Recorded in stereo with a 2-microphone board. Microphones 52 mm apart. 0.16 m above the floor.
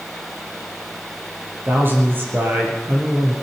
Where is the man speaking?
45° right (ahead or behind), 4 m.